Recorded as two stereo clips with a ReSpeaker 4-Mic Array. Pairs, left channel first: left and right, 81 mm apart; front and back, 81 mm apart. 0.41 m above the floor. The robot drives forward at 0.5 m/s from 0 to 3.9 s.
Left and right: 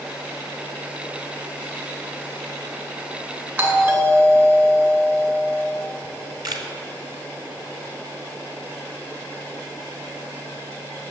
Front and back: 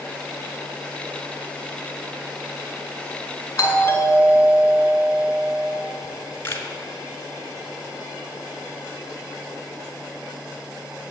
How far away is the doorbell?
About 2 m.